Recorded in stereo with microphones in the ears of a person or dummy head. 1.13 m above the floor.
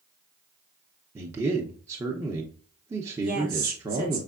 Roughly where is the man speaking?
Centre.